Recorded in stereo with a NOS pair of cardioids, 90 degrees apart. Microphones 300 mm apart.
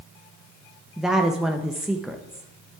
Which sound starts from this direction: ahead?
A woman speaking, at 1.0 s.